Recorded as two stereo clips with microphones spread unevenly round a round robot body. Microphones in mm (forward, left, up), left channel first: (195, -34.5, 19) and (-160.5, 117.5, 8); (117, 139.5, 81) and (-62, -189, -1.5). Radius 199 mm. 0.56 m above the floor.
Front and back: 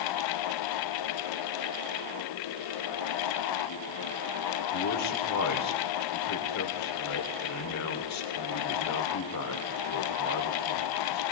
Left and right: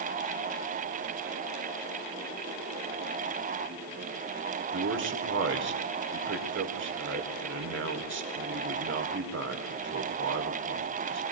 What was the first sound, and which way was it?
A man speaking, 70° right.